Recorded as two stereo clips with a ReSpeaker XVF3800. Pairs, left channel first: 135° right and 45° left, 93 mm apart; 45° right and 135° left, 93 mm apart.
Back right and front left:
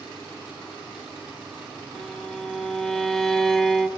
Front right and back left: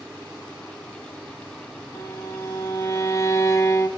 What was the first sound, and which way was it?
A violin, 55° right.